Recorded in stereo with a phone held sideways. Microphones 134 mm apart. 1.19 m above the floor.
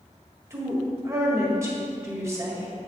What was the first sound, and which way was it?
A woman speaking, 20° right (ahead or behind).